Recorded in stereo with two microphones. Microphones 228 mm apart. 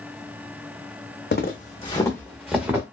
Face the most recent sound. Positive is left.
turn(degrees=-10)  # may be behind; listen again after turning